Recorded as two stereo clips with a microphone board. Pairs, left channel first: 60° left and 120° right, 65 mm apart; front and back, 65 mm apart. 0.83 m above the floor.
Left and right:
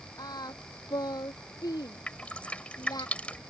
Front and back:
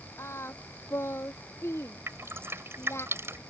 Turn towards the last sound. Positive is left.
turn(degrees=130)